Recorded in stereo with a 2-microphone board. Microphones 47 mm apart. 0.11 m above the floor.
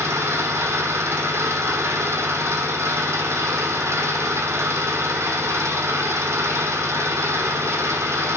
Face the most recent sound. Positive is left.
turn(degrees=-75)  # may be behind; listen again after turning